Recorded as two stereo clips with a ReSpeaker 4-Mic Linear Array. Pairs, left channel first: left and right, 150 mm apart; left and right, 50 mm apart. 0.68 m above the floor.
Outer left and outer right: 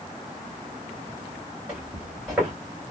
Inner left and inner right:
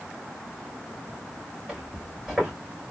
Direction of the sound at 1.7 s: 5° right (ahead or behind).